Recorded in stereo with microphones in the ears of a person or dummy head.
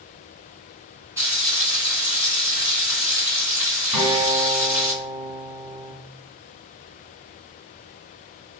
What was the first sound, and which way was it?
Frying, 15° right (ahead or behind).